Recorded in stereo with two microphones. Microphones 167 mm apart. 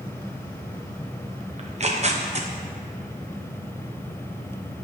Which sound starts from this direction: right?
Tearing paper, at 1.6 s.